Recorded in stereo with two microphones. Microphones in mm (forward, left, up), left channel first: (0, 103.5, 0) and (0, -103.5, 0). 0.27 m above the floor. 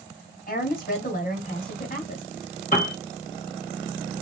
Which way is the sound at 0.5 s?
45° left (ahead or behind).